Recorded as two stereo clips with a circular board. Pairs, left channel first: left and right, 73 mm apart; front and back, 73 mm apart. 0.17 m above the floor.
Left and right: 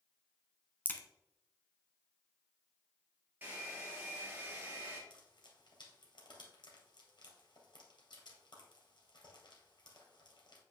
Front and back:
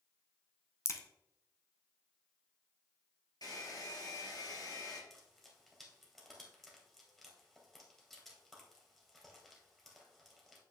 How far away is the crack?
About 0.8 m.